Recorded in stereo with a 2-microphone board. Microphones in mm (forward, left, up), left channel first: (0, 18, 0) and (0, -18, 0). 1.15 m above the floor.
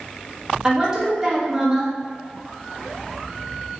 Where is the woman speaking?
20° right (ahead or behind), 0.9 m.